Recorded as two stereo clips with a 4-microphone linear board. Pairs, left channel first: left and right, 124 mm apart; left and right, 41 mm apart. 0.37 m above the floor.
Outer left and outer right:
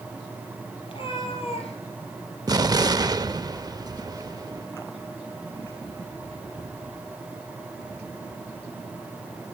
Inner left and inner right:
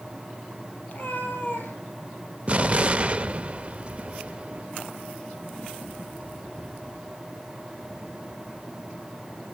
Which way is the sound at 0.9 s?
45° left (ahead or behind).